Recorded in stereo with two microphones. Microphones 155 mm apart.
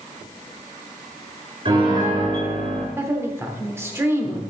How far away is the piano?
About 4.5 m.